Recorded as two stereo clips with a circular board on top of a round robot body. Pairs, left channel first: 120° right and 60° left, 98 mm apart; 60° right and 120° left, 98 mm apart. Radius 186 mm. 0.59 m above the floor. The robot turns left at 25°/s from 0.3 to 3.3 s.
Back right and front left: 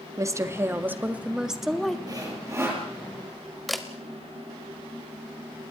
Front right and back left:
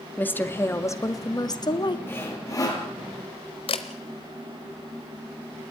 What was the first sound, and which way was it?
A woman speaking, 10° left.